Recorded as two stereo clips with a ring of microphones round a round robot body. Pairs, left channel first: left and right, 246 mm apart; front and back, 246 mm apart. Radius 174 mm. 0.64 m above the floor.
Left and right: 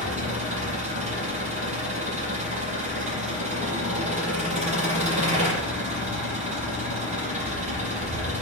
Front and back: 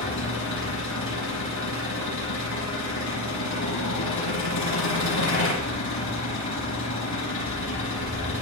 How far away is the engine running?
About 8.5 m.